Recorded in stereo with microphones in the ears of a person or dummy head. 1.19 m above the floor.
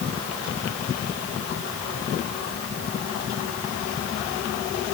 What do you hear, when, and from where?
Only background noise.